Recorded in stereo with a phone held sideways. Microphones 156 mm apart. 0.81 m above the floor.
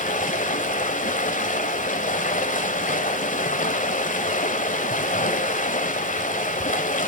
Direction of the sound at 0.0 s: 55° left (ahead or behind).